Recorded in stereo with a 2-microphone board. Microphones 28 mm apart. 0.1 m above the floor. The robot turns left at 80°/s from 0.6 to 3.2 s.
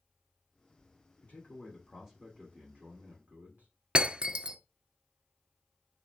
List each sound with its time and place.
1.2 s a man speaking: 60° left, 5.5 m; by 3.7 s 100° right, 5.5 m
4.0 s breaking glass: 35° right (ahead or behind), 0.9 m